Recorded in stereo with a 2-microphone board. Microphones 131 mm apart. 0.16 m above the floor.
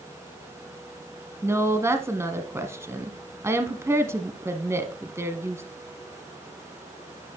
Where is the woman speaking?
20° right (ahead or behind), 1.1 m.